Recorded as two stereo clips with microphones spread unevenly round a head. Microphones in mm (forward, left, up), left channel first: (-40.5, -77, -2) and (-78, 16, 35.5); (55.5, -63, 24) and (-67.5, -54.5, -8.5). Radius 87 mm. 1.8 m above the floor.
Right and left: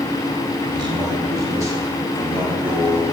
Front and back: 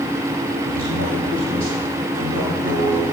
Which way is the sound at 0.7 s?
150° left.